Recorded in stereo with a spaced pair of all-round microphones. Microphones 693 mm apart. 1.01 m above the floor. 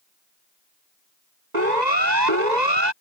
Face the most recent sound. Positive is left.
turn(degrees=-80)